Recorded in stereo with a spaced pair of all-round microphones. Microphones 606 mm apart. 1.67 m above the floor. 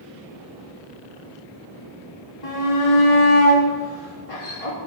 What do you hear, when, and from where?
2.4 s a shout: 65° left (ahead or behind), 3 m